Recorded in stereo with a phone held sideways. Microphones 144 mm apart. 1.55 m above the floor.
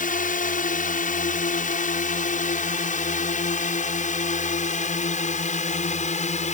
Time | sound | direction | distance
0.0 | a drone | 65° left (ahead or behind) | ?